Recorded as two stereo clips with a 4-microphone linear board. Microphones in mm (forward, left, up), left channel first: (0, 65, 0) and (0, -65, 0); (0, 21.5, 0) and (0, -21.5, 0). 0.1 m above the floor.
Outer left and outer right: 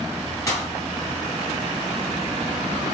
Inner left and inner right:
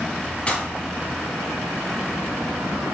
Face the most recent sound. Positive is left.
turn(degrees=25)  # may be behind; listen again after turning